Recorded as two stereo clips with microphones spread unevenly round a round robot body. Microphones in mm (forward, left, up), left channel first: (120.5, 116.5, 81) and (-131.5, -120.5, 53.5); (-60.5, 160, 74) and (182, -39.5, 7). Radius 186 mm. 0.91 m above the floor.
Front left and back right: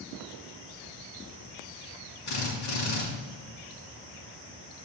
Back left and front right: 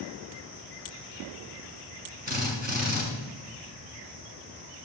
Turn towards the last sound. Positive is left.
turn(degrees=25)